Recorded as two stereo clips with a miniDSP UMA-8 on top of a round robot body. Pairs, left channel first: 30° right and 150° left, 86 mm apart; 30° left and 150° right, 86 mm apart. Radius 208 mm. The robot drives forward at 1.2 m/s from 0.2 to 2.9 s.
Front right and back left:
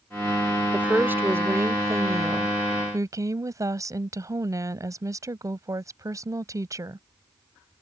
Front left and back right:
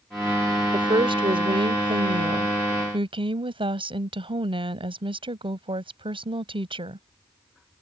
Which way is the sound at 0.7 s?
140° right.